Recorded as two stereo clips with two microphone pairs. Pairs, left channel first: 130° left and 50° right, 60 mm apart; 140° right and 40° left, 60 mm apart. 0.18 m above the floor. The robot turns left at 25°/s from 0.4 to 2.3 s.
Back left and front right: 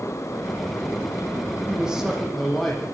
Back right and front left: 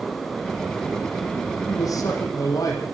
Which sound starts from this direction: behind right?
A man speaking, at 1.7 s.